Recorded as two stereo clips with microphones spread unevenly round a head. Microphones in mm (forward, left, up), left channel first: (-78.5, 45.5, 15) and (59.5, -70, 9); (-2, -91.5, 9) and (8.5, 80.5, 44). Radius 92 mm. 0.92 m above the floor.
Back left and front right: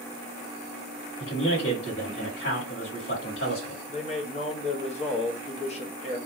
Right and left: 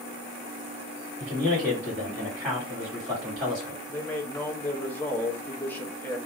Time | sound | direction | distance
1.2 | a man speaking | 170° left | 2 m
3.9 | a man speaking | 165° right | 0.9 m